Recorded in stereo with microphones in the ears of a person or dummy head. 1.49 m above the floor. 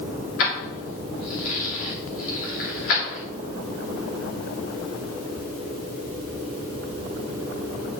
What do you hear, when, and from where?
0.4 s keys jangling: 80° left, 2.5 m